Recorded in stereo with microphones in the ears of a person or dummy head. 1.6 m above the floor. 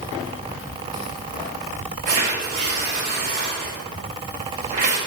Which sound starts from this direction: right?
Tearing paper, at 2.1 s.